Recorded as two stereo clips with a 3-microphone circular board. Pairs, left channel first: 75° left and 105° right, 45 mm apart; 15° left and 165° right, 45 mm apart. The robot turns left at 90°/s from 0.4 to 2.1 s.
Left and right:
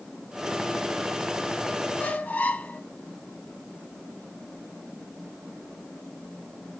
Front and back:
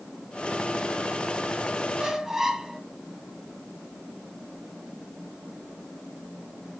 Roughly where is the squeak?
Behind left.